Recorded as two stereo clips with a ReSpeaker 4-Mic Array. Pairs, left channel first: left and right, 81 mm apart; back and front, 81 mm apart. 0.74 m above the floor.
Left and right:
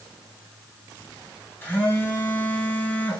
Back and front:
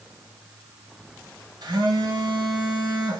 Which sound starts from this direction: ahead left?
A phone buzzing, at 1.6 s.